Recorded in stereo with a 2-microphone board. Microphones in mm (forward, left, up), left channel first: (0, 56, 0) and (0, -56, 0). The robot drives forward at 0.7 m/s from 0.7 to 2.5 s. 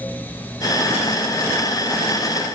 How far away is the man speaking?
No man speaking in this recording.